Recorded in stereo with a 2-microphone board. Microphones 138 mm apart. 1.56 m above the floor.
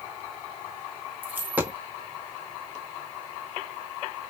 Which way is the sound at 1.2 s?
15° right (ahead or behind).